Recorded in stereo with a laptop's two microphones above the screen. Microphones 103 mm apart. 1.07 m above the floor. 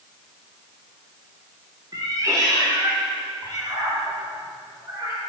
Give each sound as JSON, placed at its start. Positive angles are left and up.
{"t": 1.9, "sound": "a cat meowing", "side_deg": -35, "distance_m": 1.0}